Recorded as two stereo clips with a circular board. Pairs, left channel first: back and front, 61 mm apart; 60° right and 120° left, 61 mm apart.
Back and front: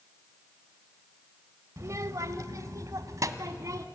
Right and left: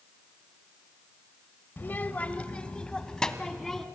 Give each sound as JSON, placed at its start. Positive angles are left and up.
{"t": 1.8, "sound": "a child speaking", "azimuth_deg": -15, "distance_m": 1.0}